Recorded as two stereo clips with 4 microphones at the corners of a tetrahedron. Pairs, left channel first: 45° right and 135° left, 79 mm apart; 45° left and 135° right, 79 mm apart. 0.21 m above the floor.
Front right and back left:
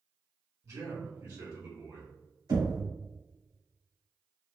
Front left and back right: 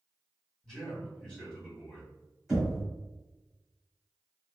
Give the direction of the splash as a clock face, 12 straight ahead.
No splash in this recording.